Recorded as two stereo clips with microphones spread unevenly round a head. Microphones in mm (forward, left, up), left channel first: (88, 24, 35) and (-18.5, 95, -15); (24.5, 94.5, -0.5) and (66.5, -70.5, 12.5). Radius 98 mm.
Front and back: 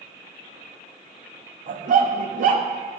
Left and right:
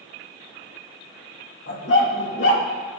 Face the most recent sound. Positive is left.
turn(degrees=125)